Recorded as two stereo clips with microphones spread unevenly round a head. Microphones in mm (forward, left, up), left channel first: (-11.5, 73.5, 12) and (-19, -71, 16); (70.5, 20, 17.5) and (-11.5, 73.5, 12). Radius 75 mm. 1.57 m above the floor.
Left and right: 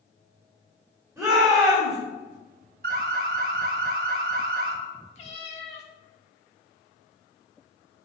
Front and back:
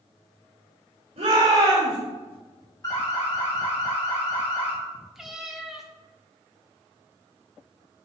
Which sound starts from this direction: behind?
A shout, at 1.2 s.